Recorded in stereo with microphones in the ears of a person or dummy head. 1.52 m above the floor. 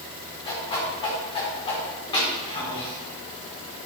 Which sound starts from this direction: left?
A whoosh, at 0.5 s.